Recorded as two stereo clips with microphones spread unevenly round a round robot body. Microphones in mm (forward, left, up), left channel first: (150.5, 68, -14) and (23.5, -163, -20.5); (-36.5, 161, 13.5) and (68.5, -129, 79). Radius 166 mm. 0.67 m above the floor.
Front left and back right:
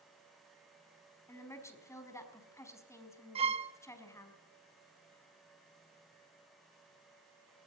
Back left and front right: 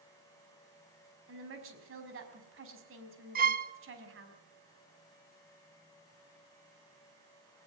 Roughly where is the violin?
Behind right.